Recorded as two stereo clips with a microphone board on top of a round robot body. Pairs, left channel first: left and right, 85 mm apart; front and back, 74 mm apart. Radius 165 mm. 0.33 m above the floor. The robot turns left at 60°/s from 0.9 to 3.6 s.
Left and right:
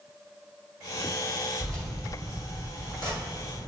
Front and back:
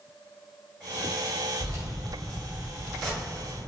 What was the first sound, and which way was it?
Keys jangling, 175° left.